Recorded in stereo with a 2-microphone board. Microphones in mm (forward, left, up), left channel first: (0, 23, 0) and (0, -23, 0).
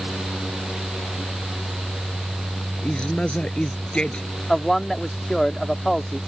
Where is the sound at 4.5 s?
5° left (ahead or behind).